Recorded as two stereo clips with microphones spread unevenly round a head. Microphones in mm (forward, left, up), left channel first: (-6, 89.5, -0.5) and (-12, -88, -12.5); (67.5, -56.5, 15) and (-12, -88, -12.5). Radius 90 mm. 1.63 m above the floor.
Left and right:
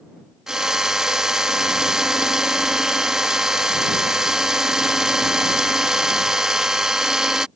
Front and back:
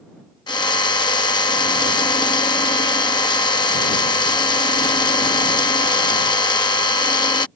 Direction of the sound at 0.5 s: 5° right.